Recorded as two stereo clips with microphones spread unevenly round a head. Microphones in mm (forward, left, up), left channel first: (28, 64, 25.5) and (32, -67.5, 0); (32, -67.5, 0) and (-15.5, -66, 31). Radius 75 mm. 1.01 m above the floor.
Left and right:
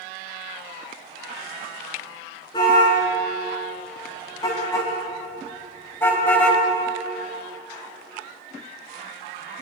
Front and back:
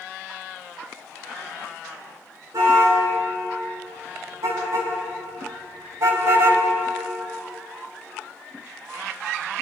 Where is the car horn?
155° left, 6 m; by 6.6 s 170° left, 2.5 m.